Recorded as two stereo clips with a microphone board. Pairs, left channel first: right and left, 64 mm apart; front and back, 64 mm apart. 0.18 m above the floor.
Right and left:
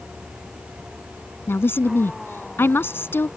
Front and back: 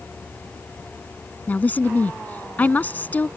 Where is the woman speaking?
55° right.